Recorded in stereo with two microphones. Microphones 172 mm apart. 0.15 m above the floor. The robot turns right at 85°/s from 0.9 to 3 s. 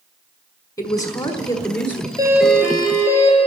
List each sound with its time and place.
0.8 s a woman speaking: 20° left (ahead or behind), 1.3 m; by 2.1 s 5° left (ahead or behind), 1.3 m
2.2 s a doorbell: 25° right, 3 m; by 3.4 s 45° left, 3 m